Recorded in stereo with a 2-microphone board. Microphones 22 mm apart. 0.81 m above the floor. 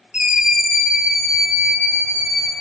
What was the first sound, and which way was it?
A scream, 40° right (ahead or behind).